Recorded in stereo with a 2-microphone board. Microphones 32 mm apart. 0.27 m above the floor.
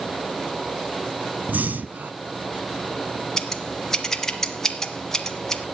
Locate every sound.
1.5 s breathing: 60° right (ahead or behind), 0.9 m
3.4 s scissors: 15° left (ahead or behind), 1.6 m